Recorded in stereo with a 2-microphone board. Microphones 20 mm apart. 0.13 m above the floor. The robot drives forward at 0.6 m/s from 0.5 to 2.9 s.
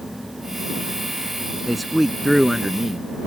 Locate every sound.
1.7 s a man speaking: 5° right (ahead or behind)